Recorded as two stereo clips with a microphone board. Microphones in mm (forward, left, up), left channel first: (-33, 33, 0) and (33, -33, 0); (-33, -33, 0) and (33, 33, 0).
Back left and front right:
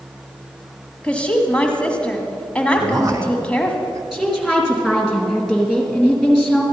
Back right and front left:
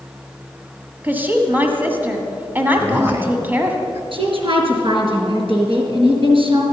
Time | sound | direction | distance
1.0 | a woman speaking | 75° left | 1.3 m
2.8 | a man speaking | 5° right | 1.8 m
4.1 | a woman speaking | 40° left | 3.5 m